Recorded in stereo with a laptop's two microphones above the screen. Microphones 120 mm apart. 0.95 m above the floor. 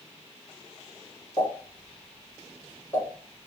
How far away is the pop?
About 1.7 m.